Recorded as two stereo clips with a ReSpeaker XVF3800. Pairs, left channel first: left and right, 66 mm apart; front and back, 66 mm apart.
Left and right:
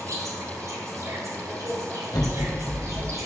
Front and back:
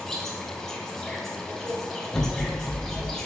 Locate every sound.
0.0 s an insect: 80° right, 3 m
2.1 s an explosion: 85° left, 2.5 m